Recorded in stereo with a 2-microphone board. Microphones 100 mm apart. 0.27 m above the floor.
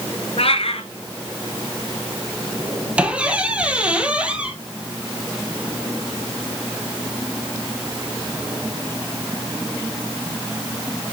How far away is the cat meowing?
About 1.3 m.